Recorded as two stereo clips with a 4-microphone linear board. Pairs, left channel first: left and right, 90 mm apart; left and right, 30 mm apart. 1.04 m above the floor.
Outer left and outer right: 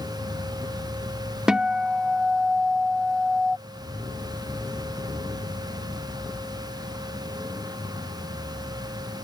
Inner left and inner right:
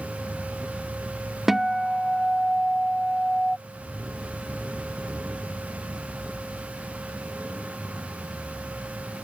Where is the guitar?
10° right (ahead or behind).